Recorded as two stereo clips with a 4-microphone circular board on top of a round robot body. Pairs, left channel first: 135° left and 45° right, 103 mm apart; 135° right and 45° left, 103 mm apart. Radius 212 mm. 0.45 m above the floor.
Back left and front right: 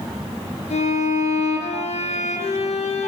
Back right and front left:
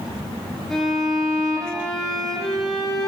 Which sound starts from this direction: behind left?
A violin, at 0.7 s.